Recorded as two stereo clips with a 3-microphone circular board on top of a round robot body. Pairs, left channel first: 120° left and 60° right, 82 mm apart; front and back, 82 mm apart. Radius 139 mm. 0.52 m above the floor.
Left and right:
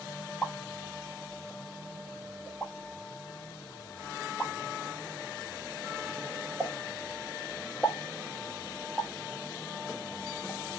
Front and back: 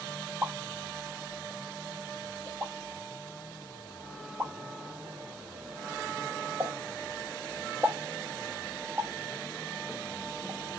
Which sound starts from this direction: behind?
A pop, at 0.4 s.